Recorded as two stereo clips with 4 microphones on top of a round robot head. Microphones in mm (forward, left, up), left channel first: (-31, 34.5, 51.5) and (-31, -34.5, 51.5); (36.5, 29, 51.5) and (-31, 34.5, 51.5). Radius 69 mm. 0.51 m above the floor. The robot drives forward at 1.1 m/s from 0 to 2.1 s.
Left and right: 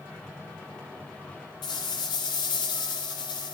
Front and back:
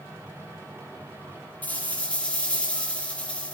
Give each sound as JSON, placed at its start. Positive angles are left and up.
{"t": 1.6, "sound": "a rattle", "azimuth_deg": 65, "distance_m": 5.0}